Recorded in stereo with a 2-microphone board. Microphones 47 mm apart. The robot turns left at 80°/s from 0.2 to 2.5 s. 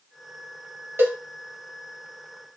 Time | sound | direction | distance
1.0 | a cowbell | 55° right (ahead or behind) | 1.5 m